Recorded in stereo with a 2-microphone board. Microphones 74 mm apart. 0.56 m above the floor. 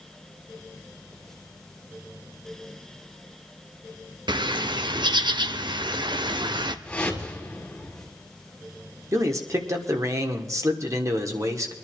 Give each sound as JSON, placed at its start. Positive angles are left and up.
{"t": 4.3, "sound": "a bird", "side_deg": -80, "distance_m": 0.7}
{"t": 6.8, "sound": "a whoosh", "side_deg": 15, "distance_m": 3.5}
{"t": 9.1, "sound": "a man speaking", "side_deg": -45, "distance_m": 1.7}